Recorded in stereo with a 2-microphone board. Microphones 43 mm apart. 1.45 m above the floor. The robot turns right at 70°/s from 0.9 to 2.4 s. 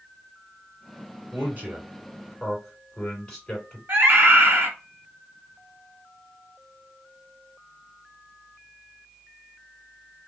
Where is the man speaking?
60° right (ahead or behind), 3 m; by 3.8 s 15° left (ahead or behind), 3 m.